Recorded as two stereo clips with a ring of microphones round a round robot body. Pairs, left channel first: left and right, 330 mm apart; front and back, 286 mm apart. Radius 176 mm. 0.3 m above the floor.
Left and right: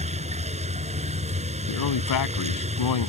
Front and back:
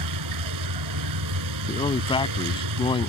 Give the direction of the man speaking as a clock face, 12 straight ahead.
10 o'clock.